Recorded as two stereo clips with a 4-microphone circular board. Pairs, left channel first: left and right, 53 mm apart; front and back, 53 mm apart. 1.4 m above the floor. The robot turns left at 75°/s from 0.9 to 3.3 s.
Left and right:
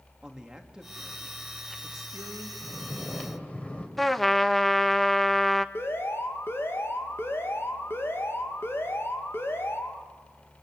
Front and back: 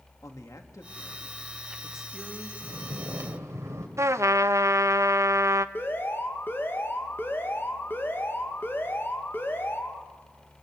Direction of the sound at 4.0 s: 175° left.